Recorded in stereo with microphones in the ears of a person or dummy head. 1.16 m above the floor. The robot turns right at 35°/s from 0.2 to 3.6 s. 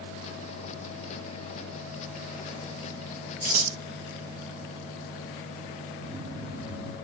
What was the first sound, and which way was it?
Scissors, 40° right (ahead or behind).